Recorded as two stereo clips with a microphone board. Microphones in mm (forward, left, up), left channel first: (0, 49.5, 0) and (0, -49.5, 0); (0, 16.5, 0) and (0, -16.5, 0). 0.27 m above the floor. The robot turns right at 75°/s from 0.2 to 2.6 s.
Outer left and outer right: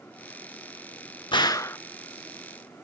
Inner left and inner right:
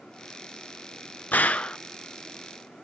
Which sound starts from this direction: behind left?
A gunshot, at 1.3 s.